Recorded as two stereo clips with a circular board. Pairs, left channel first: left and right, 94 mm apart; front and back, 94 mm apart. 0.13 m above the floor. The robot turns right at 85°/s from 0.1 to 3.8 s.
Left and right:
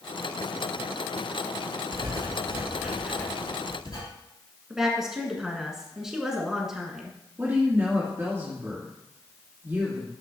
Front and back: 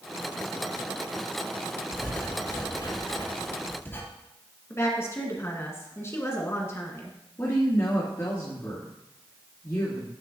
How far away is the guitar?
No guitar in this recording.